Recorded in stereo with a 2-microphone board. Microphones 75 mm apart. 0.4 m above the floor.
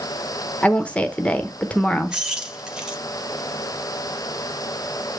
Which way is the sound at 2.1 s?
10° right (ahead or behind).